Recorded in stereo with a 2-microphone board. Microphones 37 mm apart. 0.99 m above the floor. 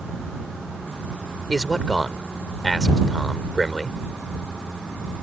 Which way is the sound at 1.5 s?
5° left (ahead or behind).